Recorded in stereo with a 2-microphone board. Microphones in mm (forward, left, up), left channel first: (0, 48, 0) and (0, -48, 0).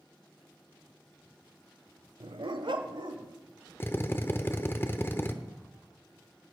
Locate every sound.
2.2 s a dog barking: 65° right (ahead or behind), 0.6 m; by 3.3 s 60° right (ahead or behind), 1.7 m
3.8 s a drill: 25° left (ahead or behind), 0.8 m